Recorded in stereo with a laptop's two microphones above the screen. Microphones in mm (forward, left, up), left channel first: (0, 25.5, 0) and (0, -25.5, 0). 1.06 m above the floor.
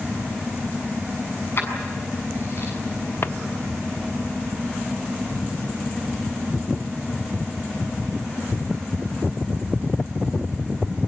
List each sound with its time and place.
1.6 s keys jangling: 50° left (ahead or behind), 7 m
3.2 s a drawer: 55° left (ahead or behind), 0.7 m